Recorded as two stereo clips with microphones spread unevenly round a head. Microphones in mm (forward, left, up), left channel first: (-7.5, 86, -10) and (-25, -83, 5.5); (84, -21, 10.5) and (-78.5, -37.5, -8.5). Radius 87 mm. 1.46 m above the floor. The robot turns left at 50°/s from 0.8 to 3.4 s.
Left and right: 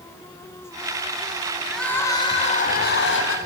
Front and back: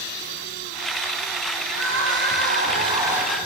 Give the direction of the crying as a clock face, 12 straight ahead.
6 o'clock.